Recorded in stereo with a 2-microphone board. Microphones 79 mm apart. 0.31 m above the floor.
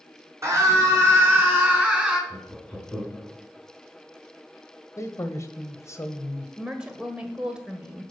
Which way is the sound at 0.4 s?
40° right (ahead or behind).